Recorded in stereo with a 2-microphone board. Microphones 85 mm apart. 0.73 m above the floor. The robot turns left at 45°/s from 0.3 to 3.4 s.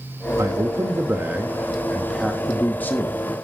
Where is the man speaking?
105° right, 1.2 m; by 3.5 s 120° left, 1.2 m.